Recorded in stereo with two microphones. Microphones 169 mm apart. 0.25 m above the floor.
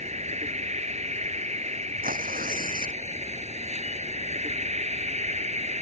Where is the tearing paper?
55° right (ahead or behind).